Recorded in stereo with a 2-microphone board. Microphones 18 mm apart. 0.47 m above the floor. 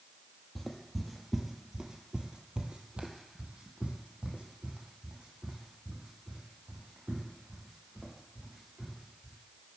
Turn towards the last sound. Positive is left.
turn(degrees=-70)  # may be behind; listen again after turning